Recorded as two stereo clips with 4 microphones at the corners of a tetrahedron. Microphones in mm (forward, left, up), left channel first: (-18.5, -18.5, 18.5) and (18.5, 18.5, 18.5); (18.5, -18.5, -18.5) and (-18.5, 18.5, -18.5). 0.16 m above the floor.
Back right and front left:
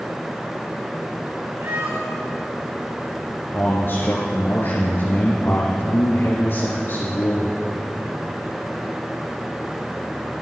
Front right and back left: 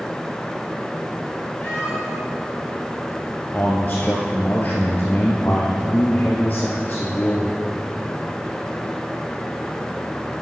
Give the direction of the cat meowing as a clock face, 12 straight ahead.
11 o'clock.